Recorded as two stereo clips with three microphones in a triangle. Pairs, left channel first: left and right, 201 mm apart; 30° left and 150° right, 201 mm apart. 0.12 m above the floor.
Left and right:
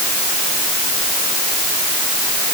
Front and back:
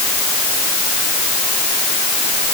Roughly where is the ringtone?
No ringtone in this recording.